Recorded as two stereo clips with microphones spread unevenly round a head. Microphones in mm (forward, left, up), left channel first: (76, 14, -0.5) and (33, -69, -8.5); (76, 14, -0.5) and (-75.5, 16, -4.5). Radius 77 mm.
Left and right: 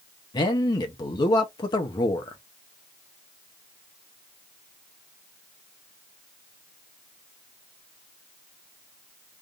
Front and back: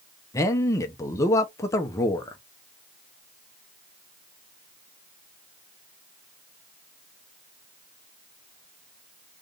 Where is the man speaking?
65° left, 0.8 m.